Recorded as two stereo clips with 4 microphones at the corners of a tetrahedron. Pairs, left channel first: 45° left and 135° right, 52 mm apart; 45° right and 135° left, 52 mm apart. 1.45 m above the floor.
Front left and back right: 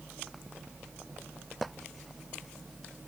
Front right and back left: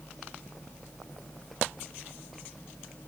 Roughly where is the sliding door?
I don't hear a sliding door.